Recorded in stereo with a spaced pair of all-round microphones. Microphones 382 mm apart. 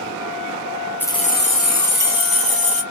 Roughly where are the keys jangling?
Centre.